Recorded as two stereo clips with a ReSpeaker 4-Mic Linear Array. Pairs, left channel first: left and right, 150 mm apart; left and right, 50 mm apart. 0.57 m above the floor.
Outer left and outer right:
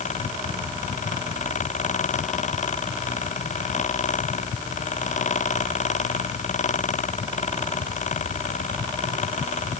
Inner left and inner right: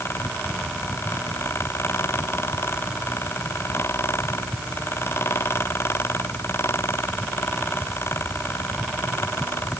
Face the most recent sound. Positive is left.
No sound to turn to.